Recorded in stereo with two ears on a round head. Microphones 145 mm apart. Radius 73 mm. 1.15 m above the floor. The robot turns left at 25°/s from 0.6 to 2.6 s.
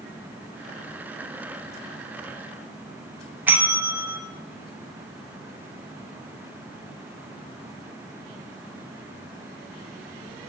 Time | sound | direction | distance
3.5 | a bell | 10° right (ahead or behind) | 0.5 m